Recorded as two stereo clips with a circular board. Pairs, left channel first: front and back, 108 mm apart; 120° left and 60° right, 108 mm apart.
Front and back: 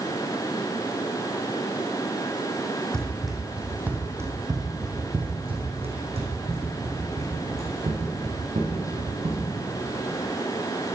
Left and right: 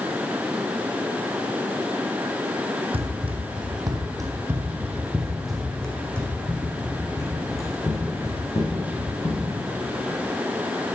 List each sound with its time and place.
2.9 s running footsteps: 85° right, 1.8 m; by 9.4 s 175° left, 4 m